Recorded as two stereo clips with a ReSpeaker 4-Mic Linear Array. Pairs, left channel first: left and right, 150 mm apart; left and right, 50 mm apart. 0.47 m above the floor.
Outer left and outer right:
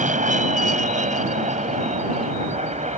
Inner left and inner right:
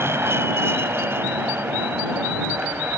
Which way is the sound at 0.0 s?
60° right (ahead or behind).